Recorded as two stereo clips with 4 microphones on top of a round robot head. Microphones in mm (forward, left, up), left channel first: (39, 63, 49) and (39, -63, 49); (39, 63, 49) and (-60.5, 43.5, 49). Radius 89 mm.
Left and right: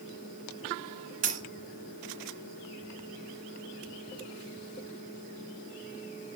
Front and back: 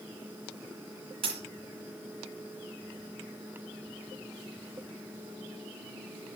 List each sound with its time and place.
1.2 s a dropped coin: 125° right, 2 m